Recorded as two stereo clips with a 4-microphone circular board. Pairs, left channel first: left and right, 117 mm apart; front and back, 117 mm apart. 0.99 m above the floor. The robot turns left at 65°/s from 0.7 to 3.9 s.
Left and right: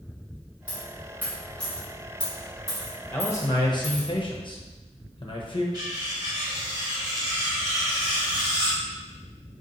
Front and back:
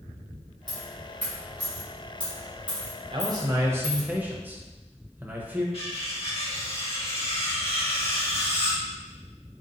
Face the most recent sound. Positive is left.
turn(degrees=-35)